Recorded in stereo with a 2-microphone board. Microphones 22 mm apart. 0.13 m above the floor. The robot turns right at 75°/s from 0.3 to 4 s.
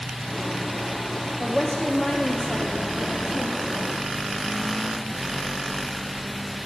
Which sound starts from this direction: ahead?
A woman speaking, at 1.4 s.